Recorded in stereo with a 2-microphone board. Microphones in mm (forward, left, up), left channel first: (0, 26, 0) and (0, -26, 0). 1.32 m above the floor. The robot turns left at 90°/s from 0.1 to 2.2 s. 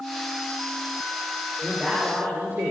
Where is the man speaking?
5° left, 4 m; by 2.7 s 45° right, 4 m.